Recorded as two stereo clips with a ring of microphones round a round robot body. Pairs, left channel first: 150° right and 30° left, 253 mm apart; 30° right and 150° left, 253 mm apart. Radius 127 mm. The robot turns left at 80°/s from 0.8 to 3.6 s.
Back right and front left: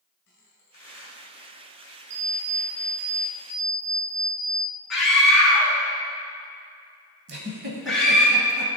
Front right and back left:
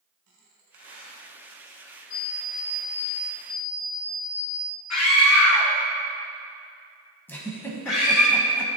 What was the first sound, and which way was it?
A squeak, 155° left.